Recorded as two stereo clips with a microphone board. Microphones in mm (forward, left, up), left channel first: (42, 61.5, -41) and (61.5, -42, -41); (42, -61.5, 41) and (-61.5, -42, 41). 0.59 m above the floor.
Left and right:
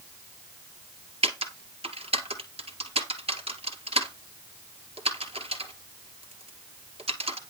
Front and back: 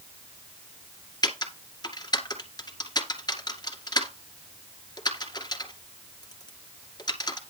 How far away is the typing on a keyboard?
About 2.0 m.